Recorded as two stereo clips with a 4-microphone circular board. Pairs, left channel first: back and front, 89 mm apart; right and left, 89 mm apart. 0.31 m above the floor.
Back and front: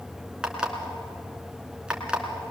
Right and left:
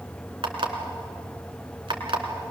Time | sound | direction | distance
0.4 | an alarm clock | 80° left | 2.5 m